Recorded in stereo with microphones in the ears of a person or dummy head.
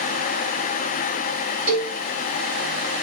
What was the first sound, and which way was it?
A cowbell, 40° right (ahead or behind).